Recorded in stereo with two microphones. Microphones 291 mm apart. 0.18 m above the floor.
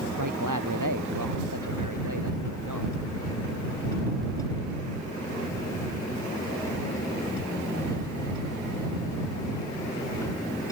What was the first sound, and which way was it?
A man speaking, 80° right.